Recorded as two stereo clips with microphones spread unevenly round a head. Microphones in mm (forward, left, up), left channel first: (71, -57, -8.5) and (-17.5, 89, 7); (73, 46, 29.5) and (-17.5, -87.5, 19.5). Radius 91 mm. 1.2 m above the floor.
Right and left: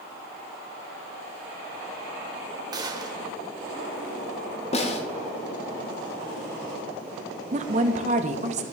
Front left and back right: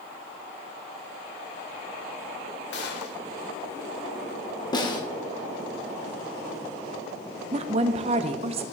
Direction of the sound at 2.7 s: 60° left.